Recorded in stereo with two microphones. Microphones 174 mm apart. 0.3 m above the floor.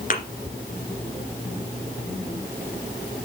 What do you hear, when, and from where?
0.1 s a thud: 50° left (ahead or behind), 2.5 m